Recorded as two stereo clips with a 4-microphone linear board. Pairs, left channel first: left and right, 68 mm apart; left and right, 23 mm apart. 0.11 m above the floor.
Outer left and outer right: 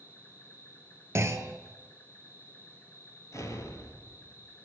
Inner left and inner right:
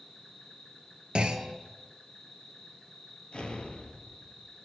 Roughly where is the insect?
Left.